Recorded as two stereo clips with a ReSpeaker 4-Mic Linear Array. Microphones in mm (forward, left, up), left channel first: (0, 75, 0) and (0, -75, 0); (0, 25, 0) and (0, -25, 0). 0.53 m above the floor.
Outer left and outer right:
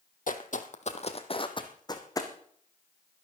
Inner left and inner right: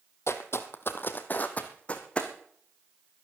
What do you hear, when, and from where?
0.3 s footsteps: 70° left (ahead or behind), 1.3 m; by 2.3 s 20° left (ahead or behind), 2 m